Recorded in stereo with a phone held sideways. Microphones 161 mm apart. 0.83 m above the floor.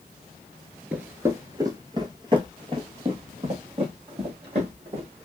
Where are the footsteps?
10° right (ahead or behind), 0.8 m; by 5.2 s 35° right (ahead or behind), 2.5 m.